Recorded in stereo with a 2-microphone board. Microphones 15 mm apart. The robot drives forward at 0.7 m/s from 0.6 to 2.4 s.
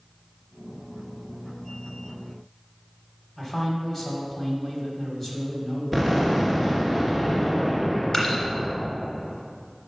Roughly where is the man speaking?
Left.